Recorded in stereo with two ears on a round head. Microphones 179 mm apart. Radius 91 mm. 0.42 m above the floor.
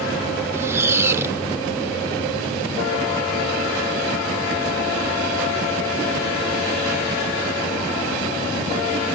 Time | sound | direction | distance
0.5 | a squeak | 15° right (ahead or behind) | ?